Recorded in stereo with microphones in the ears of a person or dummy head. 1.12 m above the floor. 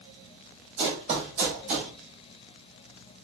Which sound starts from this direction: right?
Running footsteps, at 0.8 s.